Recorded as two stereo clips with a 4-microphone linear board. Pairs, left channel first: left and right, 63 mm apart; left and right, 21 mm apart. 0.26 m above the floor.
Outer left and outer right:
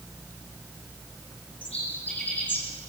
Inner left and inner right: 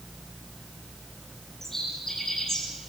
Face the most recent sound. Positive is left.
turn(degrees=30)  # may be behind; listen again after turning